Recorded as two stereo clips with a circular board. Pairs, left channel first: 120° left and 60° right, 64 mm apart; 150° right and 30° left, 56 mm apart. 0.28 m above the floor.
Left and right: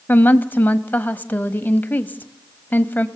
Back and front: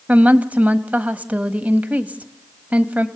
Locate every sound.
0.1 s a woman speaking: 75° left, 1.3 m